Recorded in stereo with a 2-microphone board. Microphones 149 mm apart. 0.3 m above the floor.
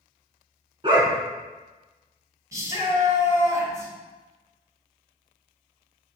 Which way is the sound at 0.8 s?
35° right (ahead or behind).